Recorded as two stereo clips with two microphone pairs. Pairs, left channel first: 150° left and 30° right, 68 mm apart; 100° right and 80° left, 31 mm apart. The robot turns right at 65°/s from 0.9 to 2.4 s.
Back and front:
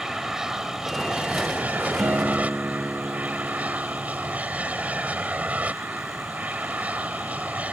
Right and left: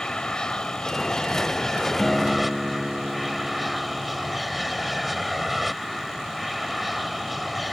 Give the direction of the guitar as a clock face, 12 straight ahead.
12 o'clock.